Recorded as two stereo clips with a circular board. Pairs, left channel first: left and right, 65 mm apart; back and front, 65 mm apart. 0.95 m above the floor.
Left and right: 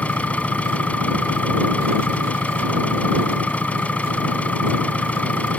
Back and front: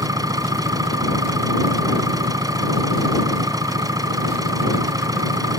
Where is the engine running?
20° left.